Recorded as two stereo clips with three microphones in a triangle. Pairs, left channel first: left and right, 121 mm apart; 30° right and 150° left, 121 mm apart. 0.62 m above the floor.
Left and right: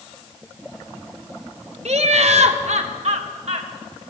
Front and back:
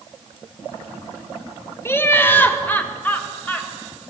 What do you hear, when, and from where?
1.9 s laughter: 100° right, 1.9 m; by 4.0 s 110° right, 3.5 m